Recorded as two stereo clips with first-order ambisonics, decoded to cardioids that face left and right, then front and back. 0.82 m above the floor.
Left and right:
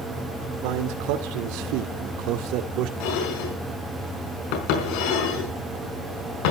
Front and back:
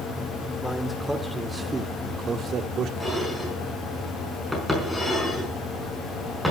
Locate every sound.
0.6 s a man speaking: 85° right, 2.5 m; by 2.9 s 130° right, 1.8 m
3.0 s dishes clattering: 90° left, 5 m